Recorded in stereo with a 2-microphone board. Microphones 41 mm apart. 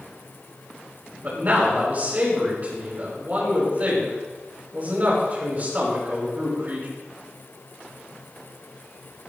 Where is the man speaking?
45° right (ahead or behind), 5.5 m.